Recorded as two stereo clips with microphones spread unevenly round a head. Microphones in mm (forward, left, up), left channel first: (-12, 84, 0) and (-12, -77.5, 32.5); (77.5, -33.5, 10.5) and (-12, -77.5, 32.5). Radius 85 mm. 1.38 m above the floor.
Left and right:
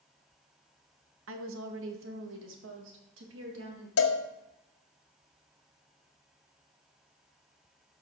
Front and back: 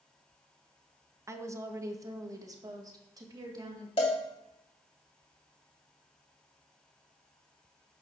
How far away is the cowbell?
About 1.3 m.